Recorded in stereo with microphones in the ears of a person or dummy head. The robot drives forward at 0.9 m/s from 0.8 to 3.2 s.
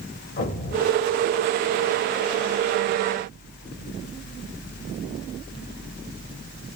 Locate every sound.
0.4 s an explosion: 35° left (ahead or behind), 1.6 m; by 1.9 s 30° left (ahead or behind), 2.0 m